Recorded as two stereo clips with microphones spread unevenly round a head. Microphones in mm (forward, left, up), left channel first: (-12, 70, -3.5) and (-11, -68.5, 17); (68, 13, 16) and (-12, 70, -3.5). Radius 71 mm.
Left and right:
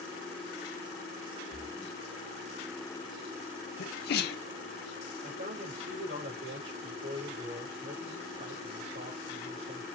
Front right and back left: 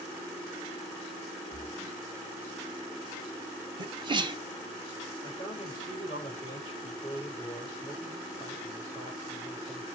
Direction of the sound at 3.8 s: 100° left.